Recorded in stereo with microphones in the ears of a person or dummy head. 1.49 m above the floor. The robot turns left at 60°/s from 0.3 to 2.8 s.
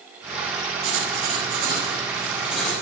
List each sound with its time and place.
0.8 s writing: 80° right, 4 m; by 2.8 s 160° left, 4 m